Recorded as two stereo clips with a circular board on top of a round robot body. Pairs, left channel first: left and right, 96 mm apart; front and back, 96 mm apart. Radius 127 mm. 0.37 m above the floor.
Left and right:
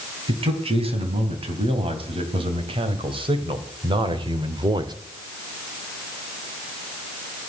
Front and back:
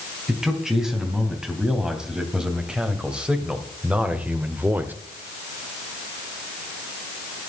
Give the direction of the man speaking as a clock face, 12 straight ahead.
3 o'clock.